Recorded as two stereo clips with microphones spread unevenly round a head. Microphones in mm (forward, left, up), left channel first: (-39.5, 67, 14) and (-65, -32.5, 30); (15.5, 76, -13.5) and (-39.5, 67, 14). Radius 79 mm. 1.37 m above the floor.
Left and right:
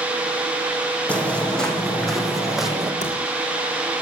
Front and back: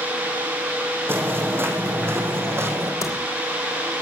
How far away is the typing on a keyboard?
About 3 m.